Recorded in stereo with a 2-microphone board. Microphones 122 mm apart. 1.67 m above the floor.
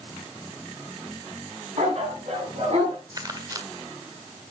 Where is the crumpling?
30° right (ahead or behind), 1.5 m.